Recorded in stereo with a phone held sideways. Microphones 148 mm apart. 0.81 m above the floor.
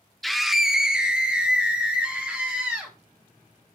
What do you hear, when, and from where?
0.2 s a scream: centre (ahead or behind), 0.5 m; by 2.9 s 10° right (ahead or behind), 1.8 m